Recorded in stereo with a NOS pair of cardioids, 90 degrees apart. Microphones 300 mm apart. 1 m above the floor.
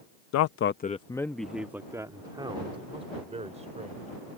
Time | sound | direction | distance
0.3 | a man speaking | 65° left | ?